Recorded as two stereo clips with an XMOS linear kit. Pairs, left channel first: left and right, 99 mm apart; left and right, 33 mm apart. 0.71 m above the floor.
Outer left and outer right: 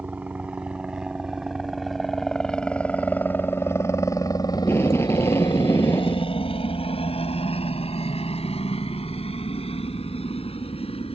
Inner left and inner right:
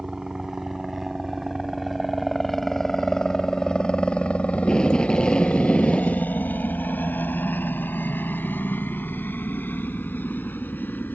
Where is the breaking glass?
I don't hear breaking glass.